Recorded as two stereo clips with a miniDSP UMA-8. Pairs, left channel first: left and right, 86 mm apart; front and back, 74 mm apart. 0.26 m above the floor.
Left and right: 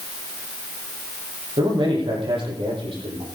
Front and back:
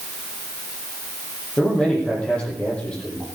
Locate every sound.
1.6 s a man speaking: 75° right, 10 m